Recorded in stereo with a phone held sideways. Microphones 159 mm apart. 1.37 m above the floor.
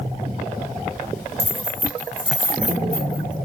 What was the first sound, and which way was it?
Keys jangling, 20° right (ahead or behind).